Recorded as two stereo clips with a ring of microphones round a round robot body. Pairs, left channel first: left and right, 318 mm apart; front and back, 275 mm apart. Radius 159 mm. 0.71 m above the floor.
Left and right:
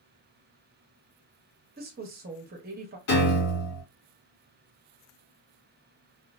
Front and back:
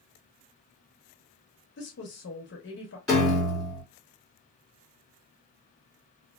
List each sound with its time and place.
1.8 s a woman speaking: 40° right, 0.9 m
3.1 s a piano: 90° left, 1.9 m